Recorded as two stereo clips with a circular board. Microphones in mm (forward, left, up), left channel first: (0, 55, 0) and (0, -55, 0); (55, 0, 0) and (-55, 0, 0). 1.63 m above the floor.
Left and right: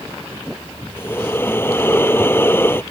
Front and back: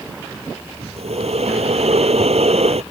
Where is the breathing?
160° left.